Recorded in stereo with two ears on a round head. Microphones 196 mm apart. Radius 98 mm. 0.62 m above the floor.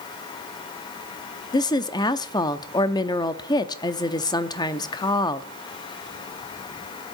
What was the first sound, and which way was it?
A woman speaking, 20° left (ahead or behind).